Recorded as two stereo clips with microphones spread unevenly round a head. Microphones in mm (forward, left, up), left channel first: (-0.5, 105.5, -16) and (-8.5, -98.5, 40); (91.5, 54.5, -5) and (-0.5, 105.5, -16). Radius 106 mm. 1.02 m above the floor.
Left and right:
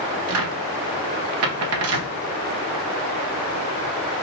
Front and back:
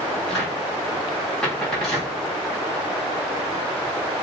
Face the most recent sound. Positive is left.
turn(degrees=-115)